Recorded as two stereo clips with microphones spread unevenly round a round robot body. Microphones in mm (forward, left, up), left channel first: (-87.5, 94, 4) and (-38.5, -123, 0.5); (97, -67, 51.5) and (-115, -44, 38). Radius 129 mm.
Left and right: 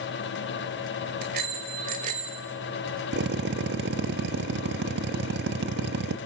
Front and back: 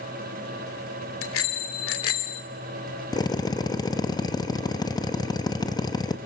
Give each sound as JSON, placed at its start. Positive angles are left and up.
{"t": 1.2, "sound": "a bicycle bell", "azimuth_deg": -20, "distance_m": 2.5}
{"t": 3.1, "sound": "a drill", "azimuth_deg": -75, "distance_m": 1.4}